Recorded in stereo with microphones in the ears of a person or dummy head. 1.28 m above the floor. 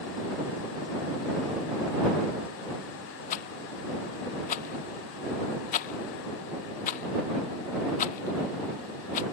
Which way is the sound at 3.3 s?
50° left (ahead or behind).